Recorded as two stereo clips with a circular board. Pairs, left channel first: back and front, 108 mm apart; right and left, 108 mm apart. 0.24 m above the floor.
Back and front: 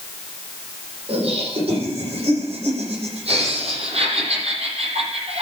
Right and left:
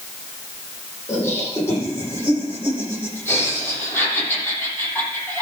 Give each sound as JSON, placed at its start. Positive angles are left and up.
{"t": 1.1, "sound": "laughter", "azimuth_deg": -25, "distance_m": 8.5}